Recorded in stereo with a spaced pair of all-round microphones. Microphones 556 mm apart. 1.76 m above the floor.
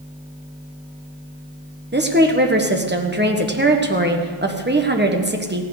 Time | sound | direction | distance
1.9 | a woman speaking | 20° right (ahead or behind) | 1.4 m